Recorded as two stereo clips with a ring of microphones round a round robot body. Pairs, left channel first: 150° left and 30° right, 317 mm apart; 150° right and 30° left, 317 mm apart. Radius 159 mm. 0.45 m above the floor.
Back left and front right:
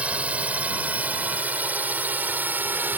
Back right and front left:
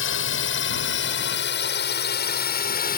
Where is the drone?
115° right; by 3.0 s 110° right.